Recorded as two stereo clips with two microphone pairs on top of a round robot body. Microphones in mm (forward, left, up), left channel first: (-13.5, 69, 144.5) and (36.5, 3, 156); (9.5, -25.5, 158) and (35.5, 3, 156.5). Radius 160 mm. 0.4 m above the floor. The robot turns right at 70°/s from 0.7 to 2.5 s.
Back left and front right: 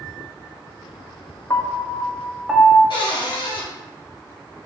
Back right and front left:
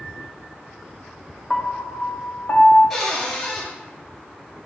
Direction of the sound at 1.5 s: 150° left.